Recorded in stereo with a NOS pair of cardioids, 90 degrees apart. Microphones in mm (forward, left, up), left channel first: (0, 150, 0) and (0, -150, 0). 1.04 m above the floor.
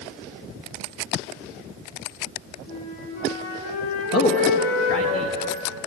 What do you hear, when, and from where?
2.7 s a flute: 70° left, 4.5 m
4.1 s a man speaking: 50° left, 1.4 m